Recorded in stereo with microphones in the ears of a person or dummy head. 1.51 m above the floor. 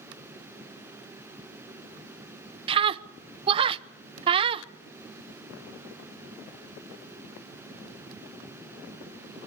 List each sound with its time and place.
2.7 s a scream: 25° right (ahead or behind), 0.7 m